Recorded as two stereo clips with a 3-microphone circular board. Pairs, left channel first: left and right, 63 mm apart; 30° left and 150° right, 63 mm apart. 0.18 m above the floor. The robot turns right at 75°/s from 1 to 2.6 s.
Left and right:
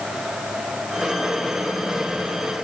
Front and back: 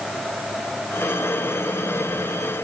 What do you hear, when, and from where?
Only background noise.